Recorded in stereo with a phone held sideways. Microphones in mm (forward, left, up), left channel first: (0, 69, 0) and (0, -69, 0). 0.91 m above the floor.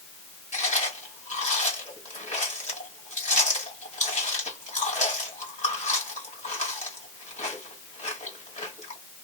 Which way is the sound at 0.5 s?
70° left (ahead or behind).